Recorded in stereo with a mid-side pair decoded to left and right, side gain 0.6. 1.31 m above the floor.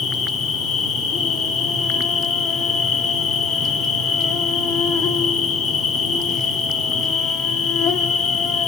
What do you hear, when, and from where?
0.0 s an insect: 55° left, 1.6 m